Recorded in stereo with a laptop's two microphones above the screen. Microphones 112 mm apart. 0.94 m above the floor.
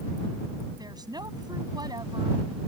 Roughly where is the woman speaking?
Right.